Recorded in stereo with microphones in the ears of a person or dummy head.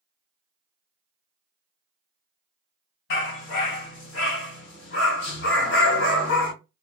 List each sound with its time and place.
3.1 s a dog barking: 55° left (ahead or behind), 3 m